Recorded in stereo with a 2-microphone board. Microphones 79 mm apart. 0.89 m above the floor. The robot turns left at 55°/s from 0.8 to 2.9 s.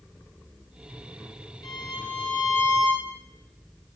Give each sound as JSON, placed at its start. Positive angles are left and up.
{"t": 1.6, "sound": "a violin", "azimuth_deg": 105, "distance_m": 0.5}